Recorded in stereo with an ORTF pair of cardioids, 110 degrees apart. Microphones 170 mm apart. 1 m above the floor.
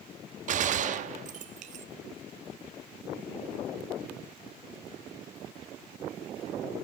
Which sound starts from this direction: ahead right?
A gunshot, at 0.5 s.